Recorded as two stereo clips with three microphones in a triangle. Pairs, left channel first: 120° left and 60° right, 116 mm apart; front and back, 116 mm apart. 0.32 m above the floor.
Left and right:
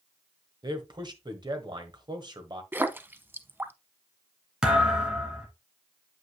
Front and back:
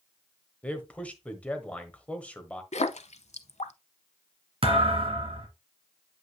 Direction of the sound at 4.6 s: 145° right.